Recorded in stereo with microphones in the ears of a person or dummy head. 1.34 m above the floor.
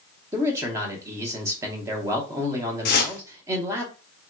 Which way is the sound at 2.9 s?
45° left (ahead or behind).